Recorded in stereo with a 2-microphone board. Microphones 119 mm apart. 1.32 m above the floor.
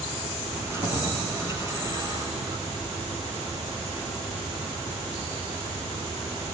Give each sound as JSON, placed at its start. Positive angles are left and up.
{"t": 0.5, "sound": "keys jangling", "side_deg": -20, "distance_m": 9.0}